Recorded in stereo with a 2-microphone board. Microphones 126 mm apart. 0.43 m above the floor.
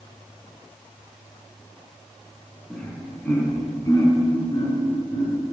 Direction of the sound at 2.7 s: 5° left (ahead or behind).